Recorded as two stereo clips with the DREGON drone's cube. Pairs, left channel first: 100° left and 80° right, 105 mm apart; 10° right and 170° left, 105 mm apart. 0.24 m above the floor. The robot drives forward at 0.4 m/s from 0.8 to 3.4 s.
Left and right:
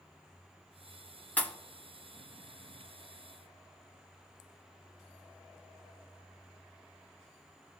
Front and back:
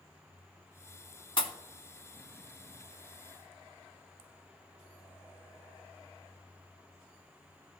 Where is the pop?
25° left, 1.0 m; by 1.5 s 30° left, 0.9 m.